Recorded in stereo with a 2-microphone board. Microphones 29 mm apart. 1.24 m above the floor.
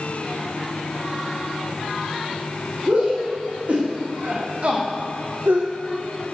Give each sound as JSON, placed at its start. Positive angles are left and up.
{"t": 2.9, "sound": "a shout", "side_deg": -50, "distance_m": 2.5}